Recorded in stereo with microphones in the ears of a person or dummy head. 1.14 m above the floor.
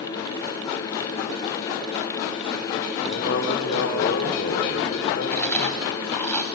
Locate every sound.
3.0 s a man speaking: 65° left (ahead or behind), 3 m
5.3 s chewing: 15° left (ahead or behind), 2.5 m